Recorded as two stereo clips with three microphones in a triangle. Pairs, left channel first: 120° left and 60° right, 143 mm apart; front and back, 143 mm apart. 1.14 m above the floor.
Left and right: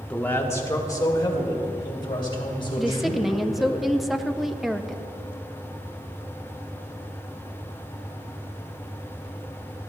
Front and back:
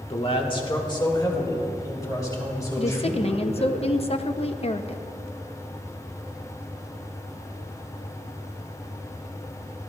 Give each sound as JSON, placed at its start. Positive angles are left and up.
{"t": 0.1, "sound": "a man speaking", "azimuth_deg": 40, "distance_m": 1.1}
{"t": 2.8, "sound": "a woman speaking", "azimuth_deg": 30, "distance_m": 0.6}